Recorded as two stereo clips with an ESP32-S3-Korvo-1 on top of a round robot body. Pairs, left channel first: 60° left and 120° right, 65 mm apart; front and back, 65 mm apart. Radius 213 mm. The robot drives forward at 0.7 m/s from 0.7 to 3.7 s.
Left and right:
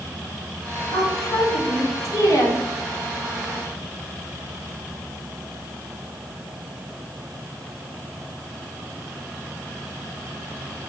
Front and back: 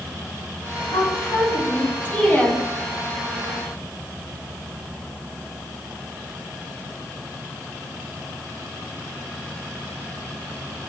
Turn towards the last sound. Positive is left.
turn(degrees=95)